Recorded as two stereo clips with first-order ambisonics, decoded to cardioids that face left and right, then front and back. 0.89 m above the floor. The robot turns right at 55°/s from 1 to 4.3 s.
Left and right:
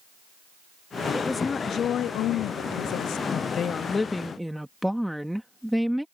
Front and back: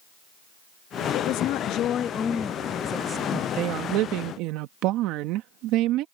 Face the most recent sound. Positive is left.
turn(degrees=180)